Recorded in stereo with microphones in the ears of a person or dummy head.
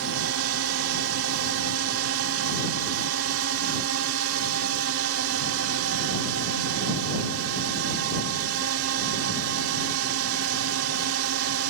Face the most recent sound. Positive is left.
turn(degrees=-75)  # may be behind; listen again after turning